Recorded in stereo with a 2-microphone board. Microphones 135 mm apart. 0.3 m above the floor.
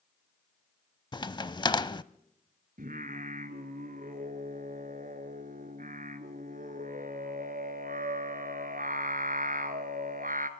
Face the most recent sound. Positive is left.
turn(degrees=-80)